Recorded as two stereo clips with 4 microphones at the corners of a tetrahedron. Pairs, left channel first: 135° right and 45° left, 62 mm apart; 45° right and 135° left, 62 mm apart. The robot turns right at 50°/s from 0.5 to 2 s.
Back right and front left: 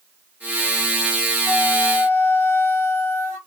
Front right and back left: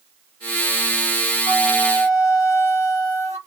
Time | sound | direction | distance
1.4 | a flute | 90° right | 2.5 m